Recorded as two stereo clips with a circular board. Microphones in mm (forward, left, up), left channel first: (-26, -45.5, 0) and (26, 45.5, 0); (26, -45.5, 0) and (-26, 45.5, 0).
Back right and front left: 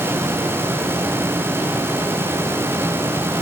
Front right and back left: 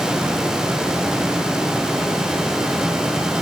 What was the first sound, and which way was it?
Only background noise.